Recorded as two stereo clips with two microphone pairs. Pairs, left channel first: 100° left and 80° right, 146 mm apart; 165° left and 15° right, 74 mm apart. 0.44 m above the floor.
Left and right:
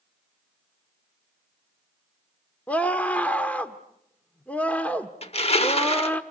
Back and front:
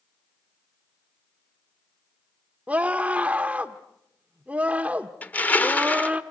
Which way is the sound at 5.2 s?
110° left.